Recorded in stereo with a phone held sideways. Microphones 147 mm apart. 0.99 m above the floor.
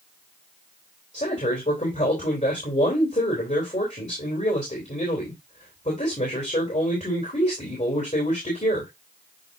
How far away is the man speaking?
About 3.5 m.